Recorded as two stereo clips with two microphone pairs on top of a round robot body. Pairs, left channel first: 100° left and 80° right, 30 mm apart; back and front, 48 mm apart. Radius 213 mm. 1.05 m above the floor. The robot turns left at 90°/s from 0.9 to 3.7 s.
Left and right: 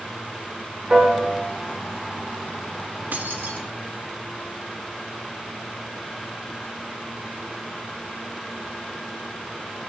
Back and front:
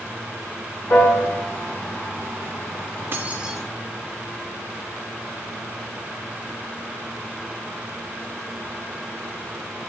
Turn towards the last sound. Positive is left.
turn(degrees=-100)